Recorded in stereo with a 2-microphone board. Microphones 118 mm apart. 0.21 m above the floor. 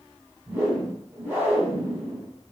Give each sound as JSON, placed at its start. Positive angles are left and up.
{"t": 0.5, "sound": "a whoosh", "side_deg": -15, "distance_m": 1.5}